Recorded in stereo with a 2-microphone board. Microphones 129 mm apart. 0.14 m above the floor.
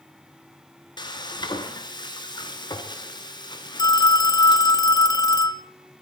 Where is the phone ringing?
30° left (ahead or behind), 0.8 m.